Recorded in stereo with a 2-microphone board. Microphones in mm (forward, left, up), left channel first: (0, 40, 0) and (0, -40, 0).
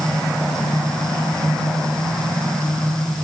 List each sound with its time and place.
Only background noise.